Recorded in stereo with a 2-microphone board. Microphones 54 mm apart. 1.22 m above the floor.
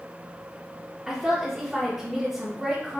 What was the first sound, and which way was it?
A woman speaking, 10° right (ahead or behind).